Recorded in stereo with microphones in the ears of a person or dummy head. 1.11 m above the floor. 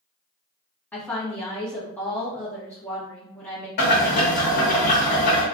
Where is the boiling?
50° left (ahead or behind), 1.2 m.